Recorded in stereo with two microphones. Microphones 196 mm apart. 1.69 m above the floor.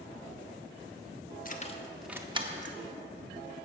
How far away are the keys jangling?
About 0.9 m.